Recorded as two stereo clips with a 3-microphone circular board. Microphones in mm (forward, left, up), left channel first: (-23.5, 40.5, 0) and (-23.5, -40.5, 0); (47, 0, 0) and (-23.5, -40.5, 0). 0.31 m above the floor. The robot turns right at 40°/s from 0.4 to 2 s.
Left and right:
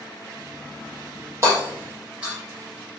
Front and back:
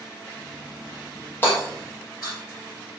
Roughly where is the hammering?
Ahead right.